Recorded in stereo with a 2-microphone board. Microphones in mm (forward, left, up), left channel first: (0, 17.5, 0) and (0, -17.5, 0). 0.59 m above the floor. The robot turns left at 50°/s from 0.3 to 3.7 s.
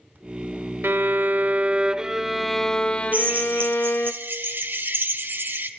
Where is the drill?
45° right (ahead or behind), 1.1 m; by 5.7 s 75° right (ahead or behind), 1.1 m.